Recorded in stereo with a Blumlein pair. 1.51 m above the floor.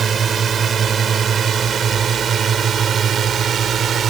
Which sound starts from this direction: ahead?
A drone, at 0.0 s.